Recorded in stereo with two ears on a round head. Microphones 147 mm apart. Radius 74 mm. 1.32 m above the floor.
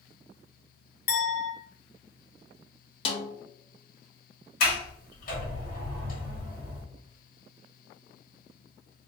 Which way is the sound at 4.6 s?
55° left (ahead or behind).